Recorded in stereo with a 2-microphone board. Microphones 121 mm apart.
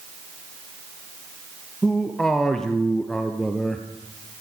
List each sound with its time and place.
1.8 s a man speaking: 5° left (ahead or behind), 3 m